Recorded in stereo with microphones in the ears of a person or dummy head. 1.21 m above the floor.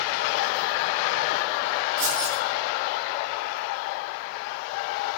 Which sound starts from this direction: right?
Keys jangling, at 2.0 s.